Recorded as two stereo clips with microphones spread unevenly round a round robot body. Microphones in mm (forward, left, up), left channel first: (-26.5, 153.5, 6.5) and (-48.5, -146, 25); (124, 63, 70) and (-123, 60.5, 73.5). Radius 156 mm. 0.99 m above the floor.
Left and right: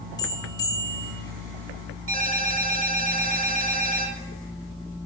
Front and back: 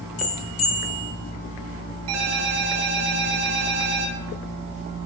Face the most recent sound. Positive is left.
turn(degrees=-145)